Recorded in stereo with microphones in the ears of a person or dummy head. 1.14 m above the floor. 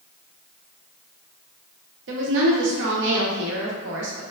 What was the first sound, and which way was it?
A woman speaking, 60° right (ahead or behind).